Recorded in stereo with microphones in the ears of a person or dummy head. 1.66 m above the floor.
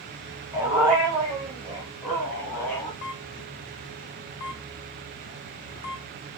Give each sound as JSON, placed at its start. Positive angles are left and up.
{"t": 0.5, "sound": "a dog barking", "side_deg": -15, "distance_m": 1.8}
{"t": 3.0, "sound": "a camera shutter", "side_deg": 60, "distance_m": 0.6}